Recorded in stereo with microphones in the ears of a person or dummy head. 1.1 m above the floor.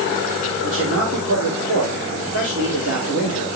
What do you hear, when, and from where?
0.6 s a man speaking: 80° right, 3 m